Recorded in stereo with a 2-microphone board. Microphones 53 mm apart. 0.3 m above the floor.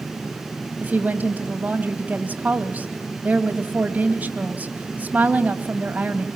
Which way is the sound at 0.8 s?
30° right (ahead or behind).